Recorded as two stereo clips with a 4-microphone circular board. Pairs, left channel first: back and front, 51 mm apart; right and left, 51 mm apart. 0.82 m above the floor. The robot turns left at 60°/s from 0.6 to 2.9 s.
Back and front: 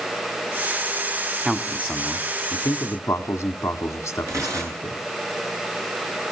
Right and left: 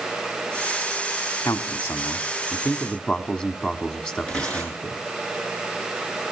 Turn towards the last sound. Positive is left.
turn(degrees=-15)